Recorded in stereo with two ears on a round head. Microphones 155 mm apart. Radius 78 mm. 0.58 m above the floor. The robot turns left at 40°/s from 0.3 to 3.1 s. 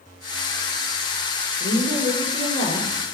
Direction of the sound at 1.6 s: 85° left.